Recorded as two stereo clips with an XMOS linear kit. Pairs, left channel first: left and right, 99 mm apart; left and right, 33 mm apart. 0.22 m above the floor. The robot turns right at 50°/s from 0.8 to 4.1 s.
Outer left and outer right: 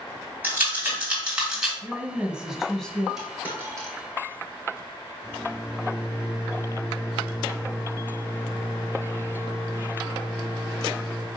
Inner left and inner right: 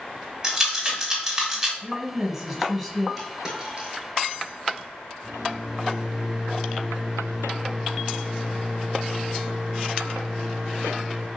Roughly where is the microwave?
Centre.